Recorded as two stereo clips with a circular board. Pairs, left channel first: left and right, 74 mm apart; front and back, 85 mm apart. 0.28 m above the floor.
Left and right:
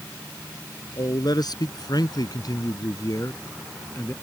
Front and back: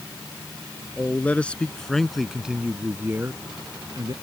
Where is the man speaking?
70° left; by 4.1 s 145° left.